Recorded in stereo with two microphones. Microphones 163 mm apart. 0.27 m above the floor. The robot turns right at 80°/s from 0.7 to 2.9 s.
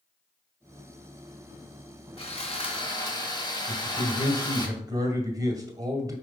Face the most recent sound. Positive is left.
turn(degrees=-20)  # may be behind; listen again after turning